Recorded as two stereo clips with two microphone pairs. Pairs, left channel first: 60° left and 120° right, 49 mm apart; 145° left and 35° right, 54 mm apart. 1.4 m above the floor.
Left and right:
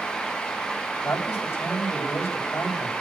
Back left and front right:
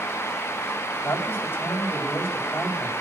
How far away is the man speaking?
About 8.5 m.